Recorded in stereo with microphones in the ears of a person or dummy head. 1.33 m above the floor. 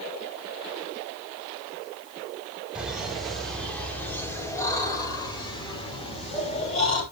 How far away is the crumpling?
No crumpling in this recording.